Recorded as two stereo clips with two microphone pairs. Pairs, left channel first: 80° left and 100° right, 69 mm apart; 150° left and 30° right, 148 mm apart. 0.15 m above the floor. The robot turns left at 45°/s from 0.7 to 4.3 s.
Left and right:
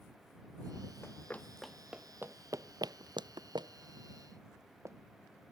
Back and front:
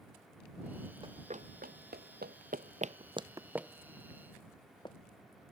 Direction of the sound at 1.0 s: 25° left.